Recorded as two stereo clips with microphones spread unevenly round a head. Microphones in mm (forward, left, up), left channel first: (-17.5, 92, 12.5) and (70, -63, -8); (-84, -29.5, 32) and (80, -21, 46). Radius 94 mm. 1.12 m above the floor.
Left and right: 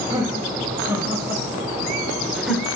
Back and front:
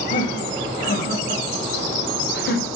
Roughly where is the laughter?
Behind right.